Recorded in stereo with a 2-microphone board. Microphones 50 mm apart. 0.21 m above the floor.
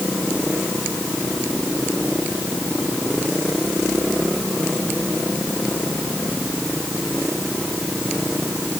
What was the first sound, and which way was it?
Only background noise.